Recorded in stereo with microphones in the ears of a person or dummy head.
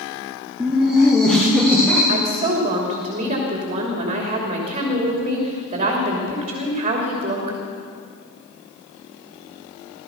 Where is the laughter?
10° right (ahead or behind), 1.8 m; by 2.0 s 5° left (ahead or behind), 3 m.